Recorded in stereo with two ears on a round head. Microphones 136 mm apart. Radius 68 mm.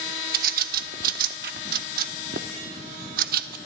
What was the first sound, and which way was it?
A bird, 70° right (ahead or behind).